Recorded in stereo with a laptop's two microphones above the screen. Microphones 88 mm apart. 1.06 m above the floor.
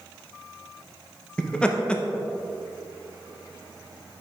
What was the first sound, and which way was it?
Laughter, 10° left (ahead or behind).